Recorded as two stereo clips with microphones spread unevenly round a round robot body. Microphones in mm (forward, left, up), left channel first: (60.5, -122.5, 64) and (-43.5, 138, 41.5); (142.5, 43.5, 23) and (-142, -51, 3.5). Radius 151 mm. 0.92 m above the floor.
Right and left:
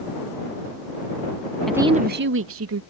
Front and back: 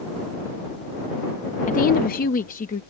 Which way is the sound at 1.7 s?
30° left.